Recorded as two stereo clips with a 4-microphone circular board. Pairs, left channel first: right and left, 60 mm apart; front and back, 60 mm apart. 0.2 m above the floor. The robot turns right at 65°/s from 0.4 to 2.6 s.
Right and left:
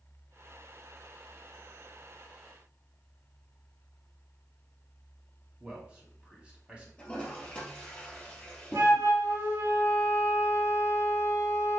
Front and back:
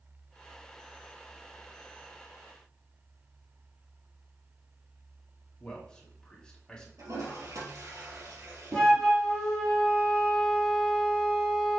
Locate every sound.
5.6 s a man speaking: 55° left, 1.4 m
7.0 s a toilet flushing: 165° right, 2.5 m
8.7 s a flute: 85° left, 2.5 m